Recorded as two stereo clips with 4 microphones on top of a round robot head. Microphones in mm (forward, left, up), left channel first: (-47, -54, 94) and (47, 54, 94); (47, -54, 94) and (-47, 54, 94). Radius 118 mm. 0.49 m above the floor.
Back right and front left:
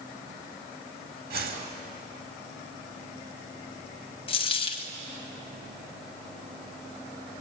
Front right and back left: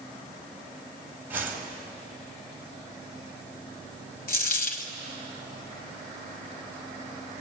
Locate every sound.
1.3 s a whoosh: 55° left, 3.5 m
4.3 s a dropped coin: 75° right, 1.6 m